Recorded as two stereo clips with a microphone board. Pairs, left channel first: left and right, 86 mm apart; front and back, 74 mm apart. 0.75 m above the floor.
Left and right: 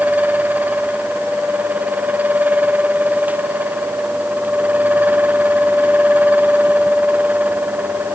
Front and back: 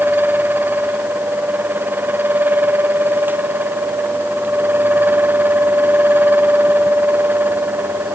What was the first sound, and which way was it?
Only background noise.